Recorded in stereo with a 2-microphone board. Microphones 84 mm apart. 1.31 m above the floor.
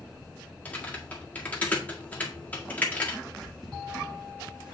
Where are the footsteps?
Centre (ahead or behind), 5 m; by 4.7 s 15° right (ahead or behind), 5 m.